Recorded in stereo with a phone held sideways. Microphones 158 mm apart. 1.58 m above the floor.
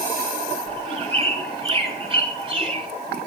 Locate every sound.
0.7 s a bird: 35° right (ahead or behind), 5 m